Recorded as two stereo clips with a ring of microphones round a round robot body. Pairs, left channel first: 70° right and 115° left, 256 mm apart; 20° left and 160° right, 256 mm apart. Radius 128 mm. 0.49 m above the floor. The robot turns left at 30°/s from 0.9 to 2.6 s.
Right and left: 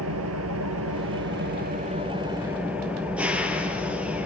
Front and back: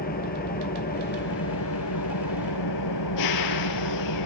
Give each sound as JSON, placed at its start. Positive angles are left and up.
{"t": 0.0, "sound": "an engine running", "azimuth_deg": 80, "distance_m": 2.5}